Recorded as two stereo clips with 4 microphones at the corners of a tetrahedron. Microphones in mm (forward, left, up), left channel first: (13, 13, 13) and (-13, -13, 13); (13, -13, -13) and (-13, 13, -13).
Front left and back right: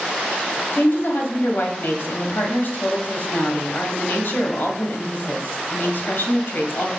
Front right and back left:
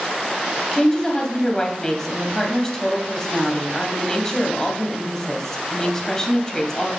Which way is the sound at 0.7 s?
25° left.